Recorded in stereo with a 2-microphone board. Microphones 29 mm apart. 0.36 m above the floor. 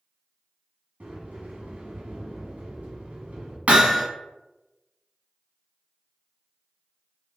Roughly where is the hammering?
Right.